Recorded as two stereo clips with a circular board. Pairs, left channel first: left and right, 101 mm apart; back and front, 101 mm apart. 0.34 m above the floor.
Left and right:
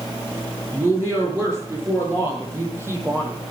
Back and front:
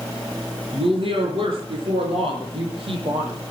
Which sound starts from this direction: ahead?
A woman speaking, at 0.7 s.